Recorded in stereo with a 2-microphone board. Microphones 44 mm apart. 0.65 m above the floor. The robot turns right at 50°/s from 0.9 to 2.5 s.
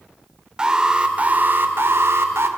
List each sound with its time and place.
0.6 s an alarm: 160° right, 2 m; by 2.5 s 80° right, 2 m